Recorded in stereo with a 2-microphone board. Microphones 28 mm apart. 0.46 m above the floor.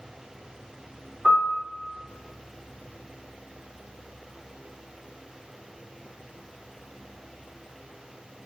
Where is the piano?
15° left (ahead or behind), 1.4 m.